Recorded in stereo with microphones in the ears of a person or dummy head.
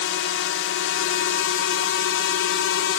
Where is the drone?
65° left (ahead or behind).